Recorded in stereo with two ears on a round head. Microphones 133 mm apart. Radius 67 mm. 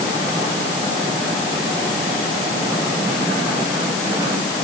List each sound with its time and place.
Only background noise.